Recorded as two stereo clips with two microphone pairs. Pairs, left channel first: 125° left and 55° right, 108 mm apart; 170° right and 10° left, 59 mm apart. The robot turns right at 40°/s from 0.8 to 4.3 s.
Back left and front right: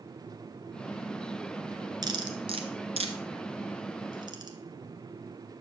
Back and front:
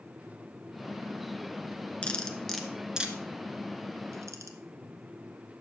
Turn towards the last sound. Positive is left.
turn(degrees=-10)